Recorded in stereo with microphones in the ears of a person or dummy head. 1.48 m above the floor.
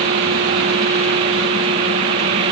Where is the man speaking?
I don't hear a man speaking.